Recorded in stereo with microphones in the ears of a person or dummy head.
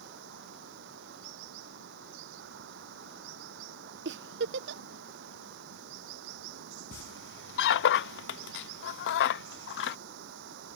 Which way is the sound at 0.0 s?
70° right (ahead or behind).